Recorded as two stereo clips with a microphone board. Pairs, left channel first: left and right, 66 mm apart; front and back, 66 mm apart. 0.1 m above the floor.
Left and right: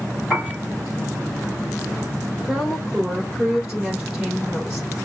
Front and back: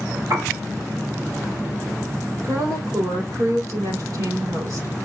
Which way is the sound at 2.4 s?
175° right.